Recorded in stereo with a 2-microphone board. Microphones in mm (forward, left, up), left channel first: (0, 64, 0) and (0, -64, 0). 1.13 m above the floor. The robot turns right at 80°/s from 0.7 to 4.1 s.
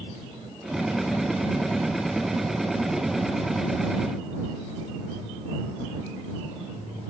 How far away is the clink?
No clink in this recording.